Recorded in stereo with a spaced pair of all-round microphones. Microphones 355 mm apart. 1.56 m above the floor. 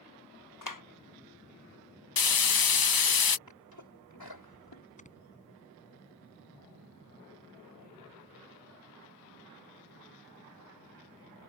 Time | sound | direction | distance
0.6 | a clap | 60° left (ahead or behind) | ?
2.2 | frying | 75° left (ahead or behind) | ?
3.5 | a sneeze | 80° left | ?
5.0 | snoring | 20° left (ahead or behind) | ?